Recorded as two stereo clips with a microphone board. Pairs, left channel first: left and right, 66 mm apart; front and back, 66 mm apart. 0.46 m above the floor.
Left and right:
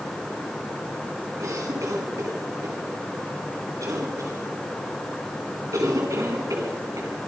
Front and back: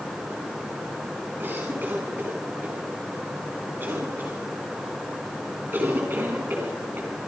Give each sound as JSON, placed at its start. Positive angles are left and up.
{"t": 1.4, "sound": "a cough", "azimuth_deg": -120, "distance_m": 4.5}